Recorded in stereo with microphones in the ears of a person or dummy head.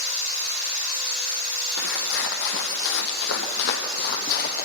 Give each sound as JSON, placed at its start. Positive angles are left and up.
{"t": 1.8, "sound": "footsteps", "side_deg": 70, "distance_m": 3.0}